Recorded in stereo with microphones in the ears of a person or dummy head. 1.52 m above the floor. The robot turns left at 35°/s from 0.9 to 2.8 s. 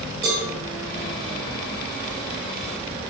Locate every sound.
0.2 s a cowbell: 10° right (ahead or behind), 1.1 m